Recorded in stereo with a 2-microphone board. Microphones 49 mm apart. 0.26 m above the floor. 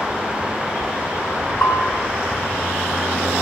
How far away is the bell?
About 6.5 m.